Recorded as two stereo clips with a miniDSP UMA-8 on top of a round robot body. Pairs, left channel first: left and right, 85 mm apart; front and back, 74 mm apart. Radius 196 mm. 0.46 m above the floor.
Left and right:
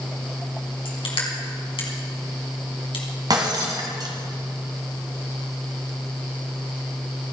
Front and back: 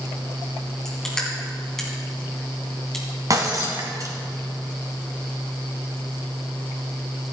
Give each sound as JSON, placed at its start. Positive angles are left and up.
{"t": 0.8, "sound": "crushing", "azimuth_deg": 85, "distance_m": 3.0}
{"t": 3.3, "sound": "breaking glass", "azimuth_deg": -135, "distance_m": 1.8}